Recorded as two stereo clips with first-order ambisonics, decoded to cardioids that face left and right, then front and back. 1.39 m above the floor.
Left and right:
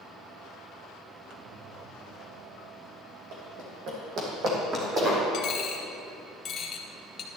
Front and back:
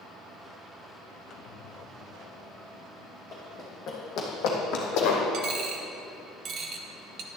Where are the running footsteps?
70° right, 3.5 m; by 5.2 s 15° right, 3 m.